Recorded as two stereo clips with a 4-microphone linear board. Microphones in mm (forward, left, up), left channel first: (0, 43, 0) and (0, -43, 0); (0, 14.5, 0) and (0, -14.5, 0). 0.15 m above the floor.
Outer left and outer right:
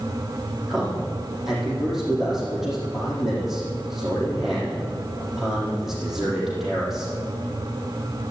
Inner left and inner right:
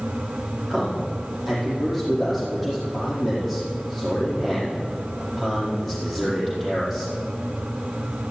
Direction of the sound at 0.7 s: Centre (ahead or behind).